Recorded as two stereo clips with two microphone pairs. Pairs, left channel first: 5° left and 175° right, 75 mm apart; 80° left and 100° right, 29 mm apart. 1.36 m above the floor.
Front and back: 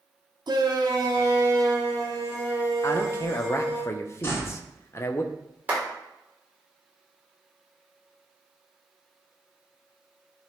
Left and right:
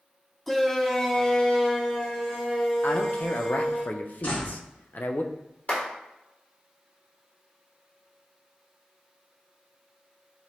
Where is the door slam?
60° left, 2.5 m.